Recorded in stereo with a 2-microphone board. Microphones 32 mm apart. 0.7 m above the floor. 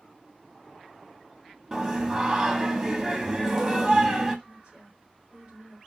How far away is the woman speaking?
About 1.9 m.